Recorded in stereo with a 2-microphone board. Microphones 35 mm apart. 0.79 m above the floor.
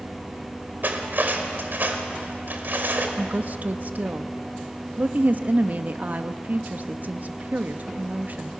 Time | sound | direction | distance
0.8 | cutlery clinking | 60° right (ahead or behind) | 2 m
3.2 | a woman speaking | 50° right (ahead or behind) | 0.8 m